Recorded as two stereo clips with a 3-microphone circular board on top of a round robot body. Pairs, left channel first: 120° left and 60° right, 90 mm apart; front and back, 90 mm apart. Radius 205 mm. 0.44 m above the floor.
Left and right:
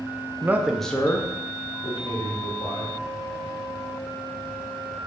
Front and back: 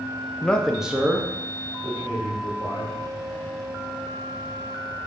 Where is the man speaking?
55° right, 0.9 m; by 3.0 s 135° left, 2 m.